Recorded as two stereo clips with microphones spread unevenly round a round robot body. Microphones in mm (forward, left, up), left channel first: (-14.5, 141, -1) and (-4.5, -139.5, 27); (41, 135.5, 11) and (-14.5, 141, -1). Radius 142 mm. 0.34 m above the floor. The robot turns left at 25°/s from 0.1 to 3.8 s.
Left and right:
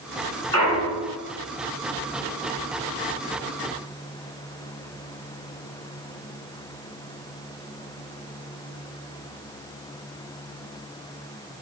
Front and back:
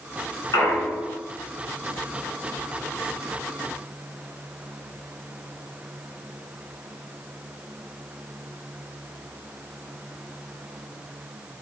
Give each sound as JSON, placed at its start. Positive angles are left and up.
{"t": 0.5, "sound": "a clunk", "azimuth_deg": 10, "distance_m": 1.4}